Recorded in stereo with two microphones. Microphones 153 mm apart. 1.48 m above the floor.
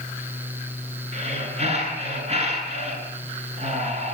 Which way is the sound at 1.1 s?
45° right (ahead or behind).